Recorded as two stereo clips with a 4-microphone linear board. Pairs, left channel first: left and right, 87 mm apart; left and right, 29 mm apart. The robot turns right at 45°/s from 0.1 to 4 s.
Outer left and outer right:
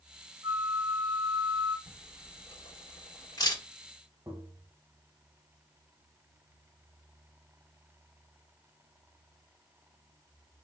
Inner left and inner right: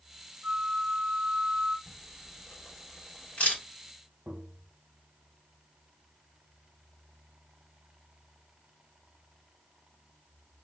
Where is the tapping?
40° right (ahead or behind), 1.2 m.